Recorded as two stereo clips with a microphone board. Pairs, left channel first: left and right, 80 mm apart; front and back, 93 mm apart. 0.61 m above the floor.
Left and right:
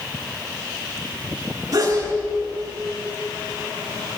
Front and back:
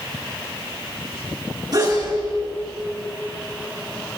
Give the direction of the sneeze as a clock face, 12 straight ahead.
4 o'clock.